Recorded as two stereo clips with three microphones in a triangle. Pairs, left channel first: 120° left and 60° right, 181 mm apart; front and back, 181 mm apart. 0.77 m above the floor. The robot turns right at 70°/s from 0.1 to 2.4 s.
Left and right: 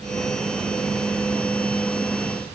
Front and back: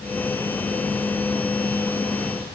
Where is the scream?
No scream in this recording.